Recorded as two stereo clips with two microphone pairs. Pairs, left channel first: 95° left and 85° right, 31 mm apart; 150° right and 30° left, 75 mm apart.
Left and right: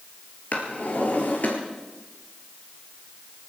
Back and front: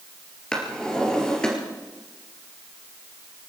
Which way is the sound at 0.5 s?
130° left.